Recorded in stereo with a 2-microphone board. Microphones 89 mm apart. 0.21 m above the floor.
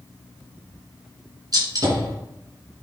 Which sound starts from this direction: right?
A gunshot, at 1.5 s.